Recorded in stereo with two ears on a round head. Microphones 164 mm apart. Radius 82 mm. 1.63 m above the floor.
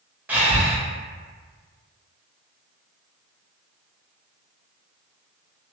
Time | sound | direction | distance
0.3 | breathing | 10° right (ahead or behind) | 0.7 m